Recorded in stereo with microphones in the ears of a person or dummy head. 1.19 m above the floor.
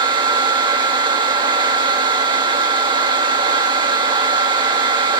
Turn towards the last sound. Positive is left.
turn(degrees=-30)  # may be behind; listen again after turning